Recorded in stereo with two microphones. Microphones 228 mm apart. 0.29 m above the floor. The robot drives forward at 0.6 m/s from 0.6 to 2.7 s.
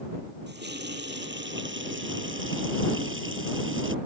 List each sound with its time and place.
0.5 s a running tap: 50° right (ahead or behind); by 4.0 s 60° right (ahead or behind)